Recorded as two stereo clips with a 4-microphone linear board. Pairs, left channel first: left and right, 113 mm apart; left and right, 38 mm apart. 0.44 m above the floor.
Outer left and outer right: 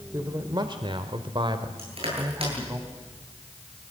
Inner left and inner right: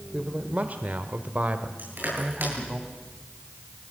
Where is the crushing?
60° right (ahead or behind), 10 m.